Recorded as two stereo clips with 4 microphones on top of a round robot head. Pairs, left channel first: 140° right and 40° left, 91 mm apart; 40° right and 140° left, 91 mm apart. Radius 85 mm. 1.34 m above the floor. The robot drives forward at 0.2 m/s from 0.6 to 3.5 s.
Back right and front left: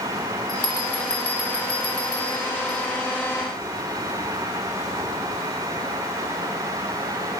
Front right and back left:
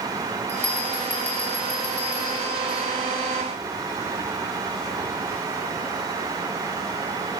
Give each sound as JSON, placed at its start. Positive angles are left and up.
{"t": 0.5, "sound": "a bell", "azimuth_deg": -110, "distance_m": 8.0}